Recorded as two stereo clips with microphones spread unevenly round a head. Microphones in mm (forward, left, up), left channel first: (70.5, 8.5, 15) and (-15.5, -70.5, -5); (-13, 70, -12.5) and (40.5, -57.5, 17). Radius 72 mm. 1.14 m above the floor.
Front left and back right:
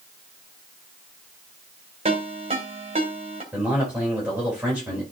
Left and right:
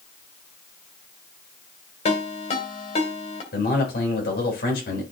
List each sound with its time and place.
2.0 s a ringtone: 165° left, 2.5 m
3.5 s a man speaking: 140° left, 4 m